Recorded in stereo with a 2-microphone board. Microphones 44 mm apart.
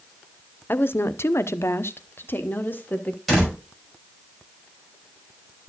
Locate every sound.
0.7 s a woman speaking: 50° left (ahead or behind), 0.6 m; by 3.2 s 40° left (ahead or behind), 1.3 m
3.3 s a door slam: centre (ahead or behind), 5.5 m